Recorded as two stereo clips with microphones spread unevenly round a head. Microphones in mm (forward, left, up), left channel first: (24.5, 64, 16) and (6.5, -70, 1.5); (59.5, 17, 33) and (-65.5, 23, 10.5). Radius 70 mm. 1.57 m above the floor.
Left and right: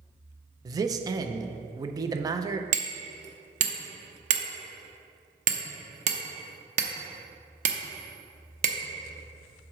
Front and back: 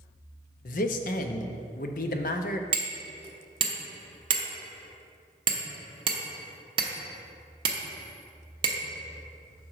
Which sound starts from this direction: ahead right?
A man speaking, at 0.7 s.